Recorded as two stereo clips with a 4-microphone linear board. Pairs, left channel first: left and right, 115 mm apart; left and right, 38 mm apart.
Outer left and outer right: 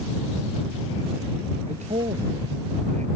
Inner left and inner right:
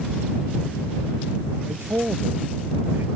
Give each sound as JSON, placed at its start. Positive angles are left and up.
{"t": 1.7, "sound": "a man speaking", "side_deg": -85}